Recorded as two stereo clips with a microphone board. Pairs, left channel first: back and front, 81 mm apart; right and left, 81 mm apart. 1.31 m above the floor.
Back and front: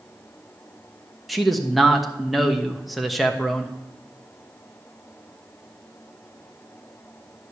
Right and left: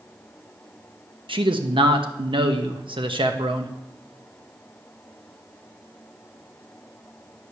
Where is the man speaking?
90° left, 1.0 m.